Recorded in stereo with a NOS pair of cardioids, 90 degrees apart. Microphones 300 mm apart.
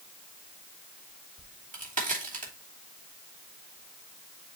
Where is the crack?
30° right, 3 m.